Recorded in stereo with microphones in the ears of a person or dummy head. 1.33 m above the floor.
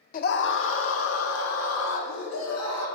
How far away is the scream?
About 0.6 m.